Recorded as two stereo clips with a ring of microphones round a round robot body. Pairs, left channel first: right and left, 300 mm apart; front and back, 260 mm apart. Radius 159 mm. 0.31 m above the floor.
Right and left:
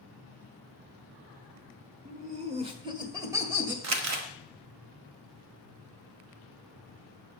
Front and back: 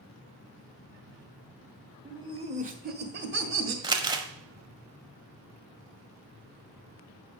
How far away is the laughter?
About 1.1 m.